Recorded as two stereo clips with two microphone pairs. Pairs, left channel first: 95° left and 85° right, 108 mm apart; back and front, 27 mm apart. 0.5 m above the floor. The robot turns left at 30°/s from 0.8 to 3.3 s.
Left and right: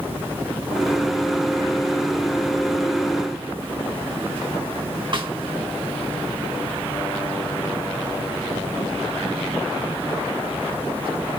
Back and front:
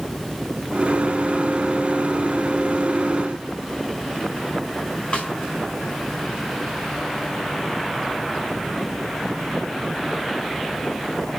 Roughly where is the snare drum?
Behind right.